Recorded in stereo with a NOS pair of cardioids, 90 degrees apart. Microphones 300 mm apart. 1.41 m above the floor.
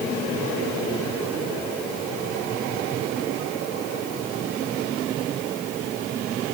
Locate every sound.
Only background noise.